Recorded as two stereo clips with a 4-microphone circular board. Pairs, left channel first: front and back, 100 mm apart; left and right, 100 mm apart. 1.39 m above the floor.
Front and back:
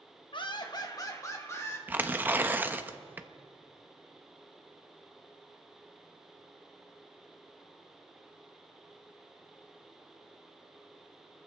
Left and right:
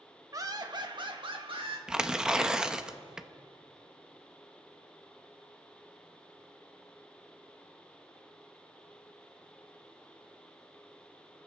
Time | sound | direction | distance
0.3 | laughter | 35° right | 1.2 m
1.9 | tearing paper | 155° right | 0.7 m